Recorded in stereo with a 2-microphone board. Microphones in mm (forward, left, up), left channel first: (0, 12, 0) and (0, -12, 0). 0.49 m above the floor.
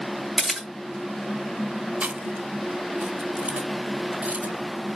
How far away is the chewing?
About 1.1 m.